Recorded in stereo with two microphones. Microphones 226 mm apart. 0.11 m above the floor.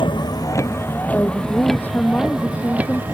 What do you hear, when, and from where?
0.0 s a vehicle: 20° left (ahead or behind); by 3.1 s 10° right (ahead or behind)
1.1 s a woman speaking: 10° left (ahead or behind)